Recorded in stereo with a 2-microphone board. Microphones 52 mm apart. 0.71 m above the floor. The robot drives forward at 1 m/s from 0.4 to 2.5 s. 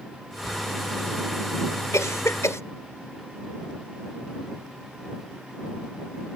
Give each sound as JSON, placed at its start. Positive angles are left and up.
{"t": 0.5, "sound": "writing", "side_deg": -75}
{"t": 1.9, "sound": "a cough", "side_deg": 75}